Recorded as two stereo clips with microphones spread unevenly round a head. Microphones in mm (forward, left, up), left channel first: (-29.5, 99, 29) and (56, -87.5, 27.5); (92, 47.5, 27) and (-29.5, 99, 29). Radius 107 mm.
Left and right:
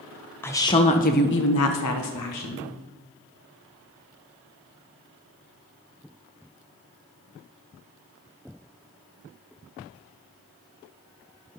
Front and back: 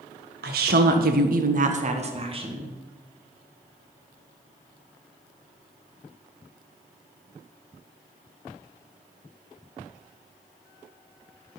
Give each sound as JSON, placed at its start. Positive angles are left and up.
{"t": 0.4, "sound": "a woman speaking", "azimuth_deg": -165, "distance_m": 1.3}